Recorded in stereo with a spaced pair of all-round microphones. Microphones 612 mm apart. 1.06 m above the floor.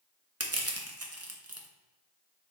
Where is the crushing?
25° right (ahead or behind), 0.6 m.